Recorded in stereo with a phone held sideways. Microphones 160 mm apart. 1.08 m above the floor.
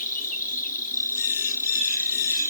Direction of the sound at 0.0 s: 60° left (ahead or behind).